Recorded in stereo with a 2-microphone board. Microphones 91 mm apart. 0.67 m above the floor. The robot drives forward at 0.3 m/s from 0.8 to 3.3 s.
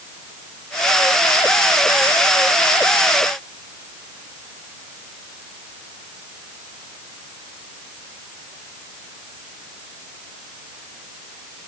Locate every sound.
Only background noise.